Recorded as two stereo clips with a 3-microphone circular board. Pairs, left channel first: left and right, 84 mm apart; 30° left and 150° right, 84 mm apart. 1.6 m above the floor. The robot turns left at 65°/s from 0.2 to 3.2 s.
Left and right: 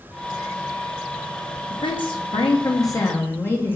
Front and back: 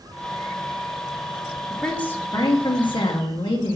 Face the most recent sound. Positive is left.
turn(degrees=25)